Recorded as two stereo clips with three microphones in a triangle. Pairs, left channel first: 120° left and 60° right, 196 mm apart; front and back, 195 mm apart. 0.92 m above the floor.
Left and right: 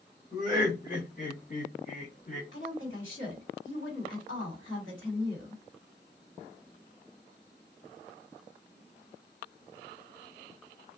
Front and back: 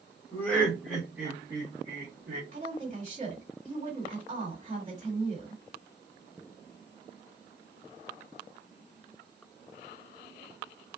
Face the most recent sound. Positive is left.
turn(degrees=125)